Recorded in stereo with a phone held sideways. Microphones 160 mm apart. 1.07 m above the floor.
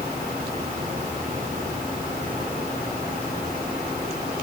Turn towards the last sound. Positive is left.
No sound to turn to.